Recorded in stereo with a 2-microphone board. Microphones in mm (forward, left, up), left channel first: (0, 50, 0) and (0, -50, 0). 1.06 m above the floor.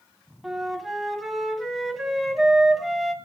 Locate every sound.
0.4 s a flute: centre (ahead or behind), 4 m